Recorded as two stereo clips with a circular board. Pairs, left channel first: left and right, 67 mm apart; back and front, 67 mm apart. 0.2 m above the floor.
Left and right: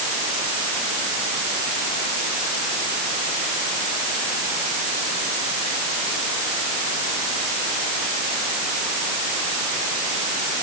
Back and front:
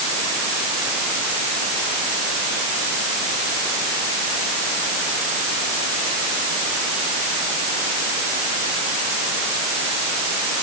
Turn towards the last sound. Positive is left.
No sound to turn to.